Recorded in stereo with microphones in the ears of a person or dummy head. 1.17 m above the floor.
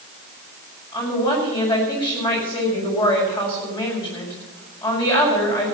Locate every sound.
0.9 s a woman speaking: 20° left (ahead or behind), 6 m